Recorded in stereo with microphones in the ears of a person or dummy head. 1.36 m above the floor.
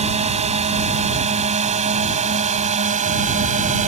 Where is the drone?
40° right (ahead or behind); by 3.9 s 45° right (ahead or behind).